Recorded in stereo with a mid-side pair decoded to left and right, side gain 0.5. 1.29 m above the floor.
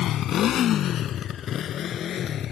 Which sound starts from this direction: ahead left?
A motorcycle, at 0.0 s.